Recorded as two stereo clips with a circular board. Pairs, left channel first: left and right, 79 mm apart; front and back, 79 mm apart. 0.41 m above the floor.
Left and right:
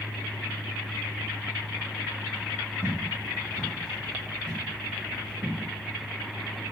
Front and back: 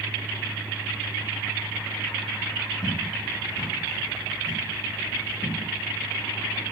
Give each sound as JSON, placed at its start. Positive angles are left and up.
{"t": 2.8, "sound": "footsteps", "azimuth_deg": 15, "distance_m": 2.5}